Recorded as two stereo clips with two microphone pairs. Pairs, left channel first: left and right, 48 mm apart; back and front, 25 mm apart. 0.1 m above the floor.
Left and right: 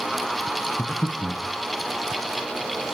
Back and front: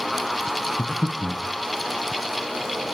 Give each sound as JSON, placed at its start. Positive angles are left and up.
{"t": 0.8, "sound": "breathing", "azimuth_deg": 130, "distance_m": 0.6}